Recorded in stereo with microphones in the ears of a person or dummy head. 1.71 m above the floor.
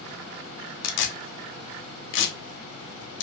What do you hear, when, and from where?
0.8 s tearing paper: 60° left (ahead or behind), 0.6 m